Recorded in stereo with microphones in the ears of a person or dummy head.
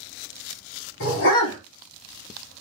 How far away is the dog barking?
About 2.5 m.